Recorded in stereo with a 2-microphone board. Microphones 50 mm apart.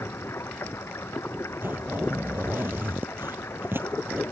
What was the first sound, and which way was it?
Running water, 60° left (ahead or behind).